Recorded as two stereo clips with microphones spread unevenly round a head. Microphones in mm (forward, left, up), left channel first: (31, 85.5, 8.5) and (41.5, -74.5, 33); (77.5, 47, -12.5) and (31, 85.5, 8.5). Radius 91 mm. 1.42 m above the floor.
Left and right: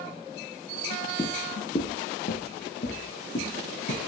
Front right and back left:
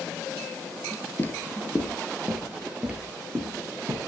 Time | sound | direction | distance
1.2 | footsteps | 25° left | 1.5 m